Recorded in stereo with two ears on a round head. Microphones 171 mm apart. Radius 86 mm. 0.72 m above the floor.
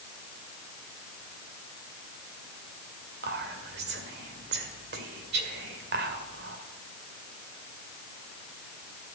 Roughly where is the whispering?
Right.